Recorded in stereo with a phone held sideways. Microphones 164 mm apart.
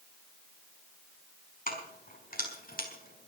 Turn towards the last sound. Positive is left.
turn(degrees=65)  # may be behind; listen again after turning